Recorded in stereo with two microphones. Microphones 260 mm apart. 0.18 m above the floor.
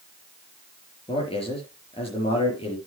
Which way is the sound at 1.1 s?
20° left (ahead or behind).